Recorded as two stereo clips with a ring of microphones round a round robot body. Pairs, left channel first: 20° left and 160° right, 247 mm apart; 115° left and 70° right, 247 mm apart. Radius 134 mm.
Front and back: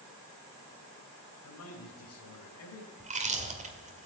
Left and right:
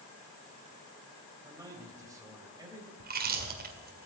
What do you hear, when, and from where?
1.4 s a man speaking: 10° left, 2.5 m
3.0 s chewing: 105° right, 2.0 m